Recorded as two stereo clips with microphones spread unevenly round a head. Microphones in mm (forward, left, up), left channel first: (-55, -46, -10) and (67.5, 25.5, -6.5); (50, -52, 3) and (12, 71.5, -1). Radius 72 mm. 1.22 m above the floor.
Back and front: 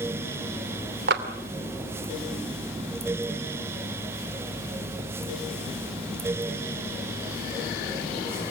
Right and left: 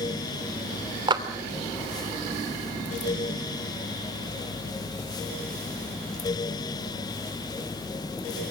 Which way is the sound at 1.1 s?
50° left.